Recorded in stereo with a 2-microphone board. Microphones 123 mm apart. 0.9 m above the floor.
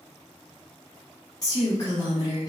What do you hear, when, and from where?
1.4 s a woman speaking: 30° left (ahead or behind), 0.8 m